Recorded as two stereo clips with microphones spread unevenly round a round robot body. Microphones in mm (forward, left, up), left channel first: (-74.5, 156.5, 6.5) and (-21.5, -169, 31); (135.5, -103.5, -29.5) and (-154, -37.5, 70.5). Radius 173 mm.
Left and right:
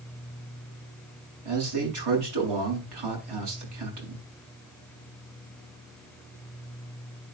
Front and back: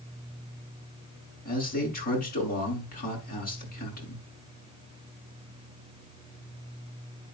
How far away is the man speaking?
About 6.5 m.